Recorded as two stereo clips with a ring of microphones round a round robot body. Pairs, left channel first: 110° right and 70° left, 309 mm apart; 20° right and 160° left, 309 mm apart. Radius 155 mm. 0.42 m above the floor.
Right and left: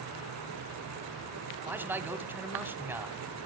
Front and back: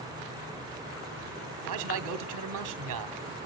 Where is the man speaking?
150° left, 1.1 m.